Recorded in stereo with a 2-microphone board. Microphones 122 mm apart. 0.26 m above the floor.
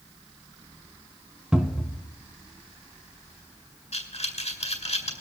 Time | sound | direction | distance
1.5 | a cupboard door | 10° right (ahead or behind) | 1.4 m
3.9 | breathing | 65° left (ahead or behind) | 3.5 m